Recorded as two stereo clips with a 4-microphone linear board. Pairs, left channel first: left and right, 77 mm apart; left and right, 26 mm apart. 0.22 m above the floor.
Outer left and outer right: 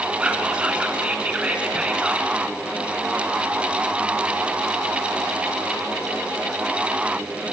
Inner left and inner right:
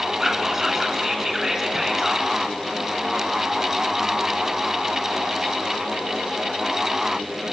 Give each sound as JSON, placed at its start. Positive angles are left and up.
{"t": 0.2, "sound": "whispering", "side_deg": -15, "distance_m": 2.5}